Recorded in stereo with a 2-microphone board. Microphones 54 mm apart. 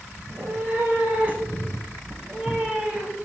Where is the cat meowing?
50° right (ahead or behind), 3 m; by 3.1 s 20° right (ahead or behind), 5.5 m.